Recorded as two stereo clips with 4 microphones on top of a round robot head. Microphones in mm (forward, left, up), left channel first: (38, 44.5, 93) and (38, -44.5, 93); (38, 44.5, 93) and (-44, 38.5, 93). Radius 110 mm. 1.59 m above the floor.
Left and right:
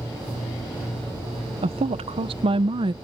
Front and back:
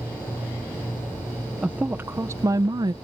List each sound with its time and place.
1.6 s a woman speaking: 95° right; by 2.9 s 130° right